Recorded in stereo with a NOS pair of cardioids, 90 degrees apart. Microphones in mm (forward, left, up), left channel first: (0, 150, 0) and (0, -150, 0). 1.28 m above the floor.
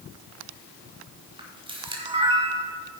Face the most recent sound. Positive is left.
turn(degrees=-15)